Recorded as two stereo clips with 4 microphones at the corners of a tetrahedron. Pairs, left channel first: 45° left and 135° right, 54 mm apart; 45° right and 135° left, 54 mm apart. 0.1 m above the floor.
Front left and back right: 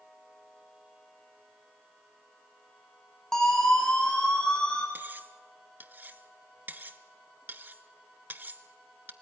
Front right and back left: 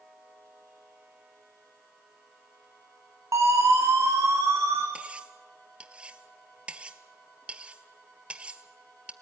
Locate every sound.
3.3 s a siren: 130° left, 5.5 m; by 4.8 s 115° left, 4.5 m
5.0 s cutlery clinking: 170° right, 0.9 m